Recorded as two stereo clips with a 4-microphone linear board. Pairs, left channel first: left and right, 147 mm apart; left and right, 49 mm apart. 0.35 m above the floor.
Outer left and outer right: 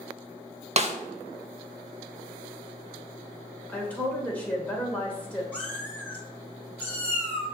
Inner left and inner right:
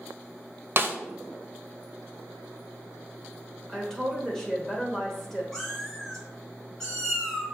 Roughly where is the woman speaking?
Centre.